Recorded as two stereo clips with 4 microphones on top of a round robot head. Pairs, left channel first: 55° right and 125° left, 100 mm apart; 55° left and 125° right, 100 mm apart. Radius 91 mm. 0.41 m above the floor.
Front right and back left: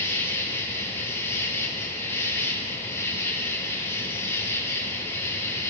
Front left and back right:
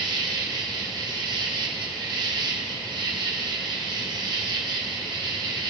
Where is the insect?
110° right, 1.8 m.